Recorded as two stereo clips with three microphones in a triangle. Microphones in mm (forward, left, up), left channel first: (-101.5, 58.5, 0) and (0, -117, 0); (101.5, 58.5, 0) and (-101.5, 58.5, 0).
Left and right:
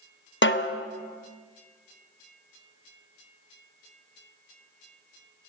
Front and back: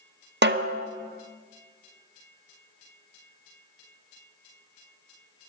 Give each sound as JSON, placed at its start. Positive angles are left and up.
{"t": 0.4, "sound": "a snare drum", "azimuth_deg": 145, "distance_m": 0.7}